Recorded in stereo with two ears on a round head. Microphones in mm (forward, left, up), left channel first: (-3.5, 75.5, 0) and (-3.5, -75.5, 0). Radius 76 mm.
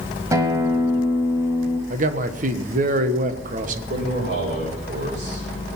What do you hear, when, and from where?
0.3 s a guitar: 20° right (ahead or behind), 1.5 m
1.9 s a man speaking: 50° right (ahead or behind), 1.3 m
3.9 s a man speaking: 65° right (ahead or behind), 5.5 m